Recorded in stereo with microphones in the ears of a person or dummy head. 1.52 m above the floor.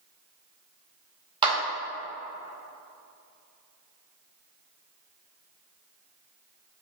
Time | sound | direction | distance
1.4 | a clap | 25° right (ahead or behind) | 1.8 m